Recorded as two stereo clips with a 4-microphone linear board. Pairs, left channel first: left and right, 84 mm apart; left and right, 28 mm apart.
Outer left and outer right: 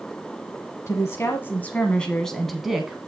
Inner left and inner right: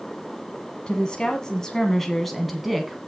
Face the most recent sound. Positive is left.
turn(degrees=-10)  # may be behind; listen again after turning